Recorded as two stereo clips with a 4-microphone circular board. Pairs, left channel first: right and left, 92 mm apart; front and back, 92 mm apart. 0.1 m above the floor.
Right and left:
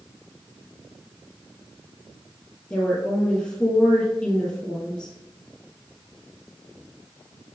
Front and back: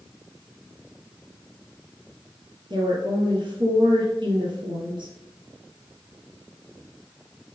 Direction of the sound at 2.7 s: 175° right.